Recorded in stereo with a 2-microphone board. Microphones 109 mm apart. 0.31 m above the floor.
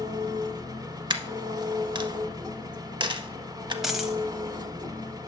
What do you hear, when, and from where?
0.0 s an engine running: 35° right (ahead or behind), 0.7 m
1.1 s a dropped coin: 45° right (ahead or behind), 0.5 m
3.8 s a dropped coin: 5° right (ahead or behind), 0.8 m